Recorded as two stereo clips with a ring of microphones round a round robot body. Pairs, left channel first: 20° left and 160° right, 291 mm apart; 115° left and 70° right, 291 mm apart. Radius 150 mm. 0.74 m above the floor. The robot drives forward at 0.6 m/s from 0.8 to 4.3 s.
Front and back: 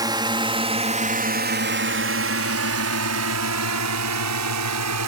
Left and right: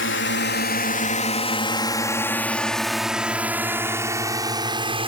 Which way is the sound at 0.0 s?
130° left.